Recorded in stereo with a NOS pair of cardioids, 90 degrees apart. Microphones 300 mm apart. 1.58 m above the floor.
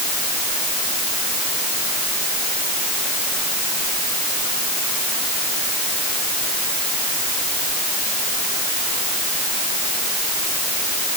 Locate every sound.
Only background noise.